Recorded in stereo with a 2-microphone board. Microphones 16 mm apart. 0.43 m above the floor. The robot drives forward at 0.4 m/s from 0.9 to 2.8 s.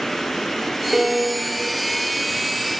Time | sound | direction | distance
0.9 | a piano | 10° right (ahead or behind) | 2 m